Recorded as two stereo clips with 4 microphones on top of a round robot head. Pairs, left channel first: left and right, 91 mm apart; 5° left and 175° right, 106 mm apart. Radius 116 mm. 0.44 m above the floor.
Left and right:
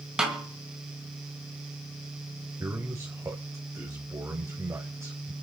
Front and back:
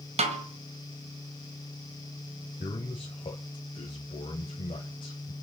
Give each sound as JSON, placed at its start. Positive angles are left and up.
{"t": 0.2, "sound": "a snare drum", "azimuth_deg": -170, "distance_m": 2.0}
{"t": 2.6, "sound": "a man speaking", "azimuth_deg": -30, "distance_m": 2.5}